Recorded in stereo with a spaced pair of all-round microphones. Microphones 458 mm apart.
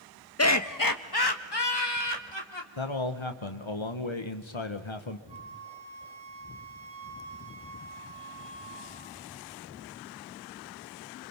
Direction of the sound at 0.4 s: 30° left (ahead or behind).